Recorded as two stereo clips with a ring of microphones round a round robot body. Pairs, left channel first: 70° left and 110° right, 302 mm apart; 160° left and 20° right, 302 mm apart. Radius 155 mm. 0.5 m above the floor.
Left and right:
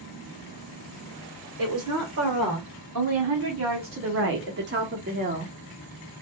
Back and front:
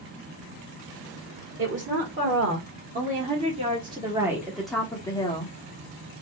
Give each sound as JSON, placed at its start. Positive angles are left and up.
{"t": 1.6, "sound": "a woman speaking", "azimuth_deg": -75, "distance_m": 2.5}